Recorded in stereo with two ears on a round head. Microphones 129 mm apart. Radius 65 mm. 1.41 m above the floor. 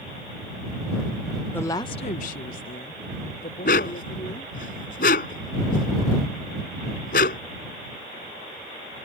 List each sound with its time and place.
1.5 s a woman speaking: 15° left (ahead or behind); by 4.7 s 50° left (ahead or behind)
3.6 s a dog barking: 75° left (ahead or behind)